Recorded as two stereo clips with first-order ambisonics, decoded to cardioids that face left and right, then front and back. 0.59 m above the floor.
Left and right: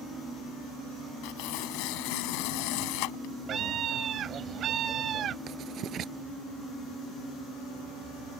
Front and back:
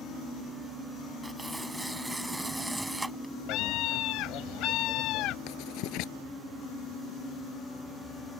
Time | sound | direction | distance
1.2 | tearing paper | 95° left | ?
3.5 | a scream | 35° right | ?
5.5 | writing | 35° right | ?